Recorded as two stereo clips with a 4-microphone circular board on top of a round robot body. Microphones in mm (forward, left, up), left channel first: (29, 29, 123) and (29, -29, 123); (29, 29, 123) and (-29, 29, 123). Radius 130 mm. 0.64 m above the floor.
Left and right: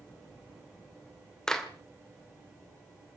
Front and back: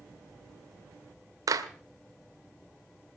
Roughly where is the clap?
Behind.